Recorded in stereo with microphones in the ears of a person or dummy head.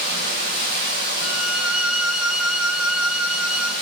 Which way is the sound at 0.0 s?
50° right (ahead or behind).